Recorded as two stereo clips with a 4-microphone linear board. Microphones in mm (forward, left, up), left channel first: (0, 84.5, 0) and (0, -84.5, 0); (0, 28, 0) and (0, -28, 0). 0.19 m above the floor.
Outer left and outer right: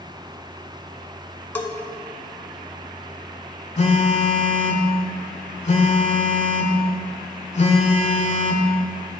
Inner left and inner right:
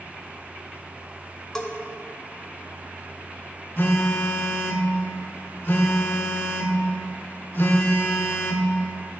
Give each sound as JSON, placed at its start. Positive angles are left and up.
{"t": 1.6, "sound": "a bell", "side_deg": 10, "distance_m": 0.6}
{"t": 3.8, "sound": "a phone buzzing", "side_deg": 45, "distance_m": 0.8}